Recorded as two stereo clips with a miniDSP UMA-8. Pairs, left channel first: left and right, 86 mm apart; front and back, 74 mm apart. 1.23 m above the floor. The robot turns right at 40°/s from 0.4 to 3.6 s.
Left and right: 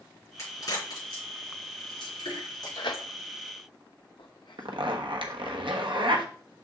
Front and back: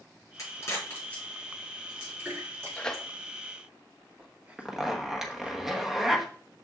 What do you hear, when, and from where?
0.4 s a crack: 40° left, 4.5 m; by 3.0 s 145° left, 4.5 m
2.8 s tearing paper: 75° left, 0.8 m; by 5.6 s 105° left, 0.8 m
4.6 s a zipper: 95° right, 1.1 m